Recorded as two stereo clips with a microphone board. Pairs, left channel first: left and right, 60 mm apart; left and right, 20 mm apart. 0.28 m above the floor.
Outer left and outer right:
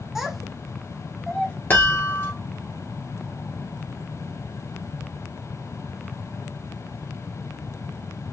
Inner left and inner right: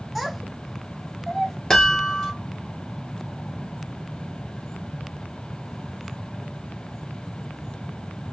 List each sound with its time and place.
0.1 s a child speaking: 5° right (ahead or behind), 0.8 m; by 1.6 s 10° left (ahead or behind), 0.6 m
1.7 s a chime: 35° left (ahead or behind), 1.3 m